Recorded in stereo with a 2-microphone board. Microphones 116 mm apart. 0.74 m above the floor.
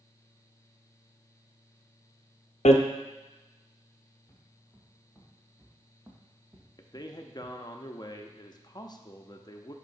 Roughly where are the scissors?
I don't hear scissors.